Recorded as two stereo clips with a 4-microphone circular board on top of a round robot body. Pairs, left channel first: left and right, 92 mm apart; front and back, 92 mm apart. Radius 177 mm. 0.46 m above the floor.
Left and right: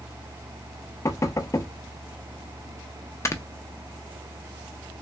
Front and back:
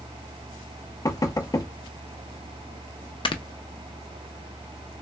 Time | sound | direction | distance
1.1 | knocking | 45° left | 0.7 m
3.2 | snoring | 30° left | 0.5 m